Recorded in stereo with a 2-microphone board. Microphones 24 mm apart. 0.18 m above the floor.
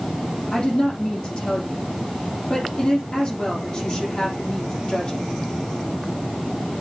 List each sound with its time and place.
0.5 s a woman speaking: 35° left (ahead or behind), 7 m